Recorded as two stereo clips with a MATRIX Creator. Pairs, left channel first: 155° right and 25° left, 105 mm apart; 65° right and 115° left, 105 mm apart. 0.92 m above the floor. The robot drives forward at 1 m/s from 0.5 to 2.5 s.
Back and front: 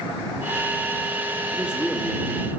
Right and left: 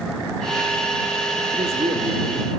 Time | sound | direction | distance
1.5 | a man speaking | 95° left | 1.7 m